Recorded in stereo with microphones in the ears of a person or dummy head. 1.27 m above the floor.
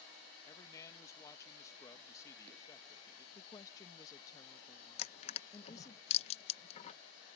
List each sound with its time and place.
0.4 s a man speaking: 20° left (ahead or behind)
3.4 s a woman speaking: 20° left (ahead or behind)
5.0 s crushing: 35° left (ahead or behind)